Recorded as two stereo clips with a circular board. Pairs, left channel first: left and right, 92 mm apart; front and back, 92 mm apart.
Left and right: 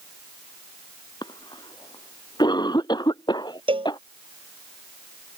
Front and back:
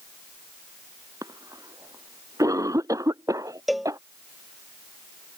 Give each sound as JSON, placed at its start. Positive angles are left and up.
{"t": 1.2, "sound": "a cough", "azimuth_deg": 130}
{"t": 3.7, "sound": "a cowbell", "azimuth_deg": -90}